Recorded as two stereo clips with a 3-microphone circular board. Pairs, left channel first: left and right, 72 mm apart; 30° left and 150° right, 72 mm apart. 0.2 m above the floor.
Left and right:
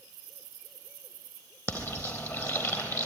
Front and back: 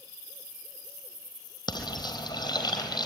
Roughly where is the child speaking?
No child speaking in this recording.